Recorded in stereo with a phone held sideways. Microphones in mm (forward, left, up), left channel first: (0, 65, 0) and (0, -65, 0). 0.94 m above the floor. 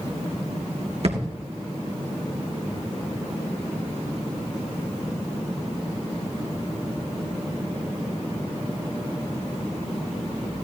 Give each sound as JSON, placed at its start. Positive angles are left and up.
{"t": 1.0, "sound": "a thud", "side_deg": -60, "distance_m": 3.0}